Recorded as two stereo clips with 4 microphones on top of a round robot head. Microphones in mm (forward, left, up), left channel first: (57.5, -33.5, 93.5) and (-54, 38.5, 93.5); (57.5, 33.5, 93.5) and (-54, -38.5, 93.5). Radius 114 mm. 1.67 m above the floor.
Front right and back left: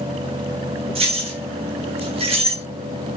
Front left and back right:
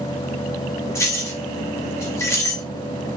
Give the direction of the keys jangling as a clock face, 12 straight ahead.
9 o'clock.